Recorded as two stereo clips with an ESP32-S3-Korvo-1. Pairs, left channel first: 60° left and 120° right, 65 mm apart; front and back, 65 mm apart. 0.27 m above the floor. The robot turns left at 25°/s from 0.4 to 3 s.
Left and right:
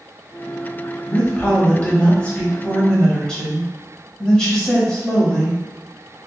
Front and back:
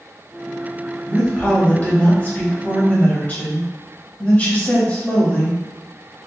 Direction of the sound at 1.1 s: 45° left.